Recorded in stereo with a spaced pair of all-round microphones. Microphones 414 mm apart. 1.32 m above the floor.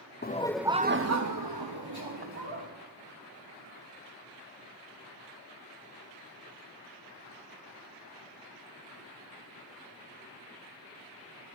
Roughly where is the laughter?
Left.